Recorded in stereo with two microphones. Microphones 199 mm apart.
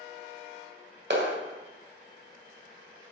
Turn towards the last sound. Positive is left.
turn(degrees=-60)  # may be behind; listen again after turning